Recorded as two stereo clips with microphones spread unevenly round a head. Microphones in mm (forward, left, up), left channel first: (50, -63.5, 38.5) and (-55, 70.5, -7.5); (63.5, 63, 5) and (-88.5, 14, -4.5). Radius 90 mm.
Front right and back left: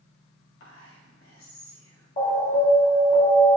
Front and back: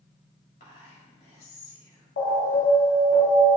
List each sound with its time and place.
0.6 s whispering: 35° right, 2.0 m
2.2 s an alarm: 10° right, 1.3 m